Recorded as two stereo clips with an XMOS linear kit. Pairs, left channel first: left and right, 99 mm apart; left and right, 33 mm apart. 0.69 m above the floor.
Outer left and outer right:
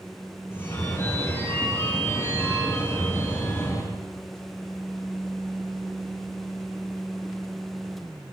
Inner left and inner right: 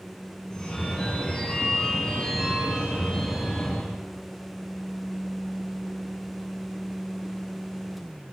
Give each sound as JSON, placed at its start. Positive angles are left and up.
{"t": 0.5, "sound": "a phone ringing", "side_deg": 25, "distance_m": 5.5}